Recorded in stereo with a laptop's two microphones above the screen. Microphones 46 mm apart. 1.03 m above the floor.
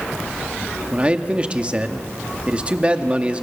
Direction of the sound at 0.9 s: 25° right (ahead or behind).